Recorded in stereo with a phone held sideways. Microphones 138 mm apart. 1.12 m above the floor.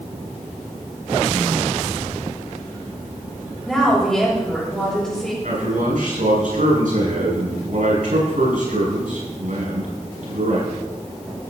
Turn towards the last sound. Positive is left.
turn(degrees=-80)